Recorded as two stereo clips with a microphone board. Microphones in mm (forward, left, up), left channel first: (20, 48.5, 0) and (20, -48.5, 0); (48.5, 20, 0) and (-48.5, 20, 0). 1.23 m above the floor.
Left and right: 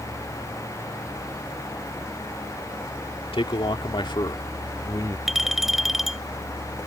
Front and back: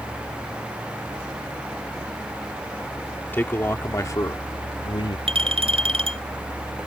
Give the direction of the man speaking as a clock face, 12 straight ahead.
10 o'clock.